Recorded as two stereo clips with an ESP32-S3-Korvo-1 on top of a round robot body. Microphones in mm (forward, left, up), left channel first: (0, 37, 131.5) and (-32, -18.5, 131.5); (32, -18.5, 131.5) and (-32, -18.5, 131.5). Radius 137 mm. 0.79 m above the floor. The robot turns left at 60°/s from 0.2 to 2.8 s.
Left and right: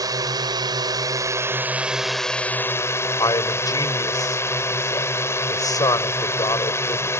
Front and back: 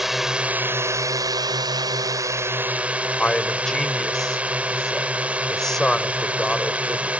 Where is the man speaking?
85° left.